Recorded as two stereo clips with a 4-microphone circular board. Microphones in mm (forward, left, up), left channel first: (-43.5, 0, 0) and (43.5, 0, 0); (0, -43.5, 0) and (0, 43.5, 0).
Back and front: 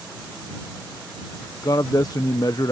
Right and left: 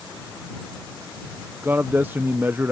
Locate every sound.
1.6 s a man speaking: 150° left